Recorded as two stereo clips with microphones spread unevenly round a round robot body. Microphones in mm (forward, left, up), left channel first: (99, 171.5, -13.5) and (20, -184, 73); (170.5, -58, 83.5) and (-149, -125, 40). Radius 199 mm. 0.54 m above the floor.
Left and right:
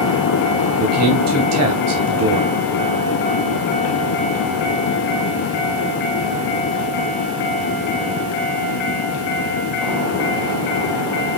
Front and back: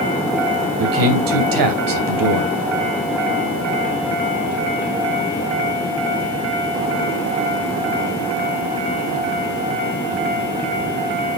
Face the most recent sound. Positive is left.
turn(degrees=-160)